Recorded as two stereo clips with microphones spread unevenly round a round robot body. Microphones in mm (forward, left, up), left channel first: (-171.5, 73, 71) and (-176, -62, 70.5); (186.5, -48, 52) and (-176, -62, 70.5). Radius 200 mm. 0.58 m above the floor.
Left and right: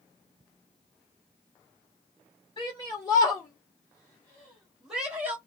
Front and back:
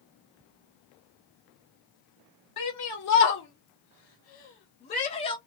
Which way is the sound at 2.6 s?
30° left.